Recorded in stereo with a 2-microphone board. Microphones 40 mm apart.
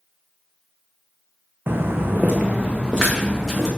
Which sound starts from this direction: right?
Footsteps, at 1.7 s.